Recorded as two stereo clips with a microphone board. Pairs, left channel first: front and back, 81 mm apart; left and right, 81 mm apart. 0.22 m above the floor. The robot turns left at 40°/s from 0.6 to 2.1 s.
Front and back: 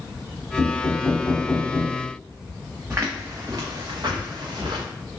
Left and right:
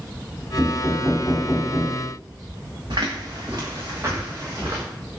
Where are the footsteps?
115° right, 1.1 m; by 4.8 s 155° right, 1.8 m.